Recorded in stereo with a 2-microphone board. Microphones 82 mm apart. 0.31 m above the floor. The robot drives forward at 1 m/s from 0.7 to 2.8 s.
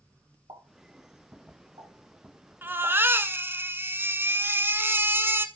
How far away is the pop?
About 7 m.